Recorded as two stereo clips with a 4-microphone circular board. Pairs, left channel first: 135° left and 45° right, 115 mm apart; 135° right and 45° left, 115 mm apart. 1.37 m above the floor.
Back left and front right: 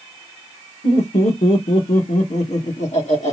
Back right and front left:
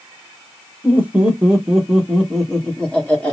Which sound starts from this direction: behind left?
Laughter, at 0.8 s.